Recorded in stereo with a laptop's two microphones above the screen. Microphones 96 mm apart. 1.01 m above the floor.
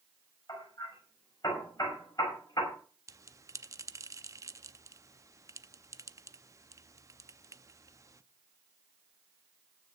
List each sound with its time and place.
0.5 s hammering: 40° left (ahead or behind), 6 m
3.1 s a bell: 35° right (ahead or behind), 0.6 m